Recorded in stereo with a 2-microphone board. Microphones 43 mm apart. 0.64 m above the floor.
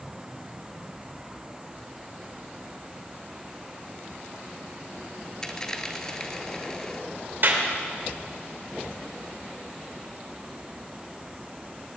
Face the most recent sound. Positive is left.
turn(degrees=-55)  # may be behind; listen again after turning